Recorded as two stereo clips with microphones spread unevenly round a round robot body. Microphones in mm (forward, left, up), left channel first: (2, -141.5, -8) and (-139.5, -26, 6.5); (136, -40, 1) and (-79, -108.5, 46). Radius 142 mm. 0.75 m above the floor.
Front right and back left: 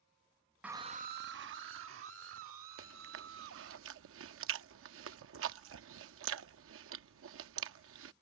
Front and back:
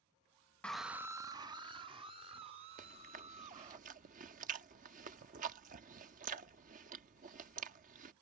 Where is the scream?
55° left; by 3.8 s 125° left.